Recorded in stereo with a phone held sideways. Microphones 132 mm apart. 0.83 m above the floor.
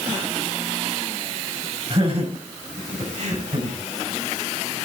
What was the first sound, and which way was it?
Laughter, 45° right (ahead or behind).